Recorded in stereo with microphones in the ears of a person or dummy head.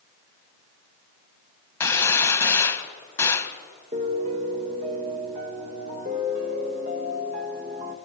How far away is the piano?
About 1.9 m.